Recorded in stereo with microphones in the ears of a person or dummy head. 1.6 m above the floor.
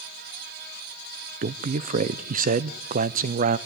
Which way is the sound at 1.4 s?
45° right (ahead or behind).